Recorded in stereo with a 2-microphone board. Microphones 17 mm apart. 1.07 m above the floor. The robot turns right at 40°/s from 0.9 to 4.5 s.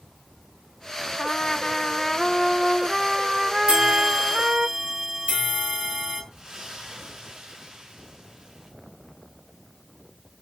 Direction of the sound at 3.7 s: 105° right.